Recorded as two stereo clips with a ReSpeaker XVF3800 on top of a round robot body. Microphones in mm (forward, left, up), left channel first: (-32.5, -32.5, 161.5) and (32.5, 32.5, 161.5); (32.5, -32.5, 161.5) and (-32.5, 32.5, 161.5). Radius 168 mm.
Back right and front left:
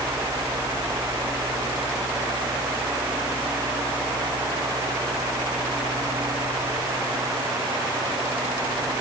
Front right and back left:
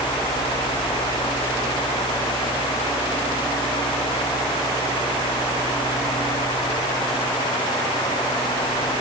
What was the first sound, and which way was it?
Only background noise.